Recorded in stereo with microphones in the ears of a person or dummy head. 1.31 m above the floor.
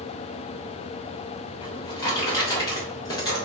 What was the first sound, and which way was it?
A drawer, 20° left (ahead or behind).